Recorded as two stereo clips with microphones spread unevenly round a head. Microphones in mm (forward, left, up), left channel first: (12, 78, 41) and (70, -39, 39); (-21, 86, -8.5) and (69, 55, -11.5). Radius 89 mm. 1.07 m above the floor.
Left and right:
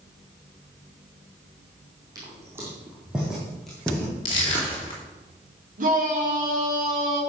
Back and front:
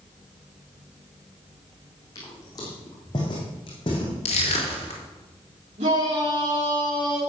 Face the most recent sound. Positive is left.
turn(degrees=-50)